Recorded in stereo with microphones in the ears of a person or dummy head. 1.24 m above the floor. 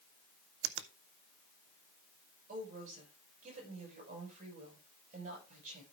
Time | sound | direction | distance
0.6 | a finger snap | 75° right (ahead or behind) | 0.6 m
2.5 | a woman speaking | 45° right (ahead or behind) | 7 m